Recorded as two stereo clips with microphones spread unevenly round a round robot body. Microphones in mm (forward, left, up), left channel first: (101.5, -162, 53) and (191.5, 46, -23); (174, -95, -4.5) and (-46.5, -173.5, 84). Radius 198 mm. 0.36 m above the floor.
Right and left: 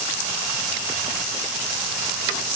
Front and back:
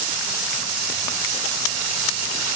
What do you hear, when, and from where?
Only background noise.